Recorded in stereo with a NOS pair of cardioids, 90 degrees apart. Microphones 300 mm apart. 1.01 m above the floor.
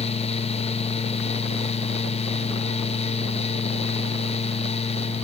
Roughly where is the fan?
Ahead.